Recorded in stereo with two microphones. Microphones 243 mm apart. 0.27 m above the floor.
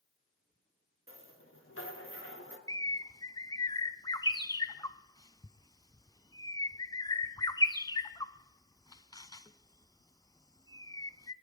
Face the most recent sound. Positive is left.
turn(degrees=15)  # may be behind; listen again after turning